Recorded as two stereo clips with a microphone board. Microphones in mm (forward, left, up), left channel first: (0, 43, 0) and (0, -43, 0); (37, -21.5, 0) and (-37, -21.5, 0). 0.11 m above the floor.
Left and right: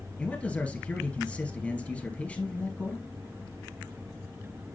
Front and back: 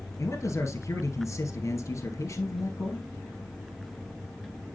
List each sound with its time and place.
0.2 s a man speaking: 20° left, 2 m